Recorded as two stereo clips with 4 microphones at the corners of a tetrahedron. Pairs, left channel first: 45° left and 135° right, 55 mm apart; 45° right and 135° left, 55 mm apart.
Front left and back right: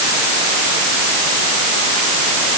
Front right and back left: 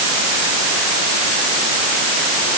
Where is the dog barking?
I don't hear a dog barking.